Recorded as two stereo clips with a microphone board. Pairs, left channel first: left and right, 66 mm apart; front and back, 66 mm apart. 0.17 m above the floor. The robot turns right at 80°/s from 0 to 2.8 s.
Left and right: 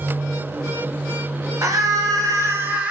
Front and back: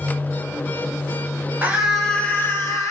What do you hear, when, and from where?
1.6 s a scream: 120° right, 3 m; by 2.9 s 25° right, 3 m